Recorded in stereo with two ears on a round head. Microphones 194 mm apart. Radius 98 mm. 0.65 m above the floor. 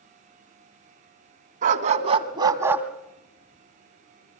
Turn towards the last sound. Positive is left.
turn(degrees=35)  # may be behind; listen again after turning